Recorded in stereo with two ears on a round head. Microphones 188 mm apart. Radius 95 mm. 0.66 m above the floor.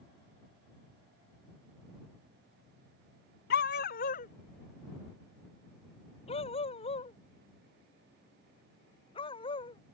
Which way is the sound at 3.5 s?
50° left (ahead or behind).